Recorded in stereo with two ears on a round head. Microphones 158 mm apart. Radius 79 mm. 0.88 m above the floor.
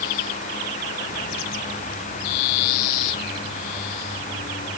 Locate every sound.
Only background noise.